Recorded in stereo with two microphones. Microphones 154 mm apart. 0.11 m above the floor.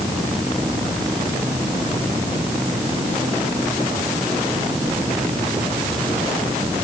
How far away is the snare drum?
No snare drum in this recording.